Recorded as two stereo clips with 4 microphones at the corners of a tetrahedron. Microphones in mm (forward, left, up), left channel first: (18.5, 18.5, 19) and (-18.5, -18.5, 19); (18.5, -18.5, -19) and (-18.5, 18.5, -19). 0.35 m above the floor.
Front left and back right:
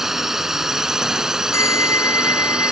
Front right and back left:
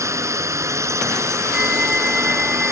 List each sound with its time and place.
0.0 s a drone: 140° left; by 2.7 s 150° left
1.5 s a bell: 55° left